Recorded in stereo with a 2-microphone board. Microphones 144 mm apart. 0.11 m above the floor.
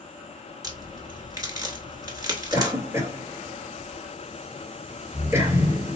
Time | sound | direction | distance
0.6 | a crack | 25° right (ahead or behind) | 1.3 m
2.5 | a cough | 20° right (ahead or behind) | 1.8 m